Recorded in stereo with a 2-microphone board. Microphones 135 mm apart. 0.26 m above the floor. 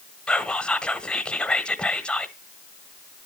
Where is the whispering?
5° left (ahead or behind), 1.1 m.